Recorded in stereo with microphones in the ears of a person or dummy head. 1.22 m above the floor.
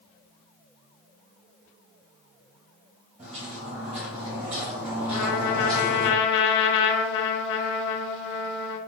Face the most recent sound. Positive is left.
turn(degrees=65)  # may be behind; listen again after turning